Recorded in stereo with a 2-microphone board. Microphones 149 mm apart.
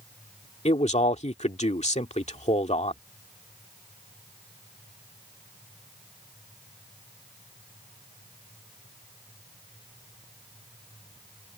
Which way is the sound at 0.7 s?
45° left (ahead or behind).